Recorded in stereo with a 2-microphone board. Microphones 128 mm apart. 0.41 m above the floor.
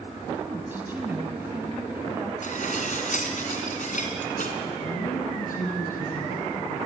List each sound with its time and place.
0.3 s a woman speaking: 15° right (ahead or behind), 3.5 m
2.4 s dishes clattering: 70° left (ahead or behind), 3 m
4.8 s a woman speaking: 80° left, 8.5 m